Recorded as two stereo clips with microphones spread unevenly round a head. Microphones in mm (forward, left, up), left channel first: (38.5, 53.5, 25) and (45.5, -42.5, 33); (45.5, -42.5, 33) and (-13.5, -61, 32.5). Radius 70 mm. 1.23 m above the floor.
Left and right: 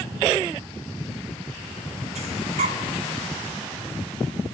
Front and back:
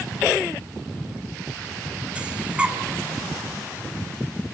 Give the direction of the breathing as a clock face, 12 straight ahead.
3 o'clock.